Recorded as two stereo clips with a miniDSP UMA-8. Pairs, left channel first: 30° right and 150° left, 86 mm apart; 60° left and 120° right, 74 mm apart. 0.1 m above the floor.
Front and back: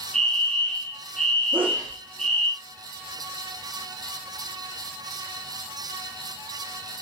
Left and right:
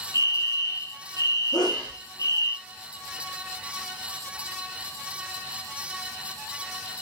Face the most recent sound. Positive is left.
turn(degrees=75)